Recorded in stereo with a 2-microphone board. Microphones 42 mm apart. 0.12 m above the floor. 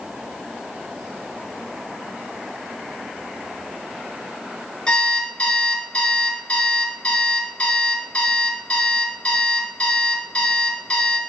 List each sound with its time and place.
4.9 s an alarm clock: 25° left (ahead or behind), 1.0 m